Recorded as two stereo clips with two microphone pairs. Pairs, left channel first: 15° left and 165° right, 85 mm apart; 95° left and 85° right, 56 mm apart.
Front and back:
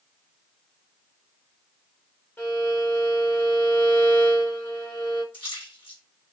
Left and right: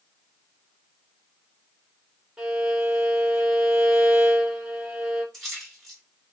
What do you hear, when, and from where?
2.4 s a violin: 10° right, 1.1 m
5.3 s a splash: 15° left, 1.3 m